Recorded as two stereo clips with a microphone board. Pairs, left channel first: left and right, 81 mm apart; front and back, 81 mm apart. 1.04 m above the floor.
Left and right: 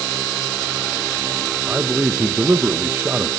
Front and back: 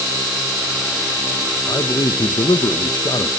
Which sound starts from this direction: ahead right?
A man speaking, at 1.7 s.